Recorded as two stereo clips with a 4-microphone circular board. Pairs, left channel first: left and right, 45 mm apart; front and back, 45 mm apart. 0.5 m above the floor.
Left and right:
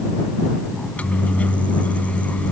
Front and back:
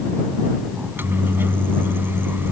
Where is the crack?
I don't hear a crack.